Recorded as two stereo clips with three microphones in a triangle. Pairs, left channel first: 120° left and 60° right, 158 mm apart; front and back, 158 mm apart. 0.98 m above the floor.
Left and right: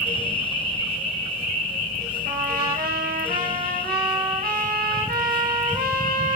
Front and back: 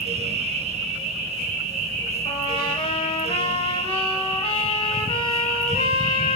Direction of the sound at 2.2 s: 55° right.